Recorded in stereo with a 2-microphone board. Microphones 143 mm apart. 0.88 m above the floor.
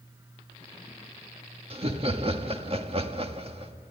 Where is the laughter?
40° right (ahead or behind), 1.6 m.